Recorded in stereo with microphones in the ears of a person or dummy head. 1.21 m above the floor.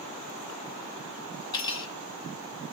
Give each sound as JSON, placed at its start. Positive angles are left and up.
{"t": 1.5, "sound": "cutlery clinking", "side_deg": 20, "distance_m": 1.9}